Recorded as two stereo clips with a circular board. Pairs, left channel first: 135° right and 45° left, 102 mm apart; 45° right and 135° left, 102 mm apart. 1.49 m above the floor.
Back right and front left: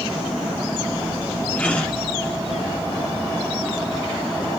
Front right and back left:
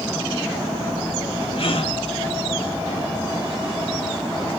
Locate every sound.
1.6 s a gasp: 60° right, 1.7 m